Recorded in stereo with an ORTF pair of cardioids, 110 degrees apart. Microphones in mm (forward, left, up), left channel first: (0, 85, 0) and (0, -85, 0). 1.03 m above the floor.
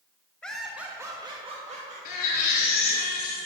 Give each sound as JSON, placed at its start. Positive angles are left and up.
{"t": 0.4, "sound": "laughter", "azimuth_deg": 5, "distance_m": 1.1}
{"t": 2.0, "sound": "a baby crying", "azimuth_deg": 65, "distance_m": 2.5}